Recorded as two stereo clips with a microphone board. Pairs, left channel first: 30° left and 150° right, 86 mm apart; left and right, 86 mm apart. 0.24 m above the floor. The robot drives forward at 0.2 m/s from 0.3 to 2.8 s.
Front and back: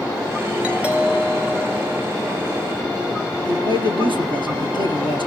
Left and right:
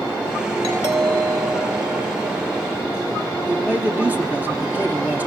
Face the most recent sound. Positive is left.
turn(degrees=-160)